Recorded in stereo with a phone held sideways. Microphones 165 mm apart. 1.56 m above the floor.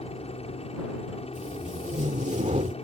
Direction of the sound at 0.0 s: 40° left (ahead or behind).